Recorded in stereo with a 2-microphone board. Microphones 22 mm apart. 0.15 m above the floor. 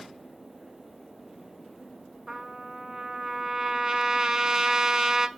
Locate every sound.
2.3 s a trumpet: 25° right (ahead or behind), 0.5 m